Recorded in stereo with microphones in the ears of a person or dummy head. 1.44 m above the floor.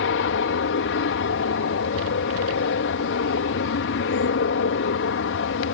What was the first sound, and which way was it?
An aircraft, 65° left (ahead or behind).